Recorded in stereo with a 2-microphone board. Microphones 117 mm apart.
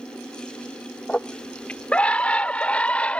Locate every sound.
1.1 s a scream: 10° left (ahead or behind)